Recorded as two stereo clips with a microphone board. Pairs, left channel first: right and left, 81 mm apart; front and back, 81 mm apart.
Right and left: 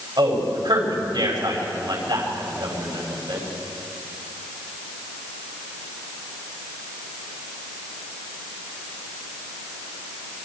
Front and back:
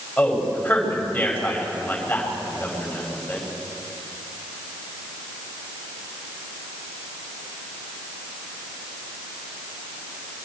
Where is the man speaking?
70° left, 5.5 m.